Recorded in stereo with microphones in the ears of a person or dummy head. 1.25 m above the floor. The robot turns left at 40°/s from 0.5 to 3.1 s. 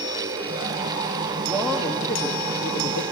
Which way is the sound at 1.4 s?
165° right.